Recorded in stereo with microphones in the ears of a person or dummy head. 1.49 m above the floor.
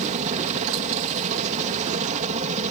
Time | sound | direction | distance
0.0 | a helicopter | 40° right (ahead or behind) | ?